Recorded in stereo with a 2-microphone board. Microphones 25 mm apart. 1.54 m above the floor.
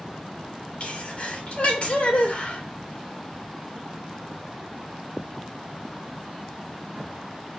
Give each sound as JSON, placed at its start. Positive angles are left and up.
{"t": 0.8, "sound": "a sneeze", "side_deg": 55, "distance_m": 3.0}